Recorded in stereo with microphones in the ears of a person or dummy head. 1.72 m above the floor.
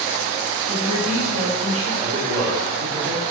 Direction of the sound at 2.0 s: 25° right (ahead or behind).